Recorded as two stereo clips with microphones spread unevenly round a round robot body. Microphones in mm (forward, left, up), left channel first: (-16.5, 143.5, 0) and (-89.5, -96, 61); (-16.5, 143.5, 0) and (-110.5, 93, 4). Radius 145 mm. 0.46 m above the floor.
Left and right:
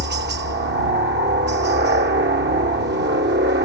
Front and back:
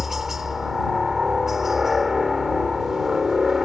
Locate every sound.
0.0 s a helicopter: 65° right